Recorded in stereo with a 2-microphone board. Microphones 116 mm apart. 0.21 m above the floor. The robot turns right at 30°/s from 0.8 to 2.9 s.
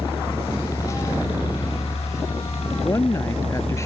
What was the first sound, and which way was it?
A helicopter, 35° left.